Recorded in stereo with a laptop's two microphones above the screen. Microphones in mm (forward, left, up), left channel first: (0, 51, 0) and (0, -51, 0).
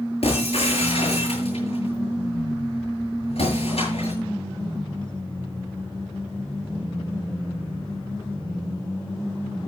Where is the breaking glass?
65° left (ahead or behind), 8.5 m.